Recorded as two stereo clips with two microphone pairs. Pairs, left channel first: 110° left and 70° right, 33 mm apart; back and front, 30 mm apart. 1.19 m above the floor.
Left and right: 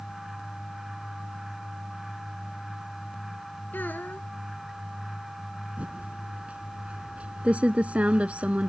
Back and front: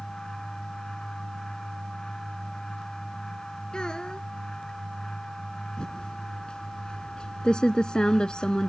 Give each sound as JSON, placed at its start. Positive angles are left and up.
{"t": 3.7, "sound": "a child speaking", "azimuth_deg": 120}
{"t": 5.8, "sound": "typing on a keyboard", "azimuth_deg": -115}